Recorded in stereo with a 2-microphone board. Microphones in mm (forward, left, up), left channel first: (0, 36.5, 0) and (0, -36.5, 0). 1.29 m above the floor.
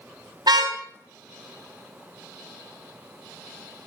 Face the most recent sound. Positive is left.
turn(degrees=-70)  # may be behind; listen again after turning